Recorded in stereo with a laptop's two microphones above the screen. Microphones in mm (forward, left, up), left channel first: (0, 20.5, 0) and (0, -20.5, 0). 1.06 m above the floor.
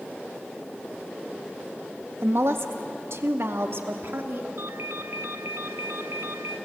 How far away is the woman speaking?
About 1.5 m.